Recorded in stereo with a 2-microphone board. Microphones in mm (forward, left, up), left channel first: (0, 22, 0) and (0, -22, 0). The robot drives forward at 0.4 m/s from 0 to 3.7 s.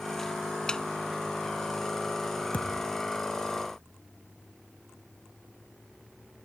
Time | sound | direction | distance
0.7 | a snare drum | 15° left (ahead or behind) | ?
2.5 | a thud | 35° left (ahead or behind) | ?